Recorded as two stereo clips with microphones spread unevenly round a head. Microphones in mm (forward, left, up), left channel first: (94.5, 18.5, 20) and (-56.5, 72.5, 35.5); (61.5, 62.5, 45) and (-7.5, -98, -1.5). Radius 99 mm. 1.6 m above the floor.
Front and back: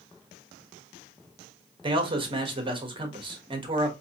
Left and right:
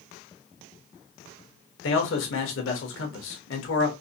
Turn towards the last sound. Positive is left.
turn(degrees=100)